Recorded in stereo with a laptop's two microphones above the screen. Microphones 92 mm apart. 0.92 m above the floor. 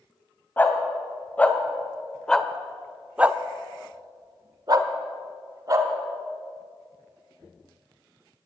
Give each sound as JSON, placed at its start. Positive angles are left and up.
{"t": 0.6, "sound": "a dog barking", "side_deg": 20, "distance_m": 1.8}